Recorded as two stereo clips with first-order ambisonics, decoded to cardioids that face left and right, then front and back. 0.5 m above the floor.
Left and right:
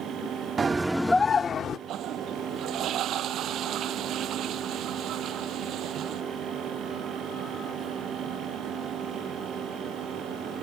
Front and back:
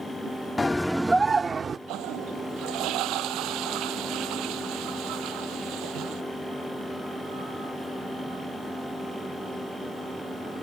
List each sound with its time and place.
0.6 s a scream: 60° right; by 1.8 s 125° left
1.9 s a toilet flushing: 140° right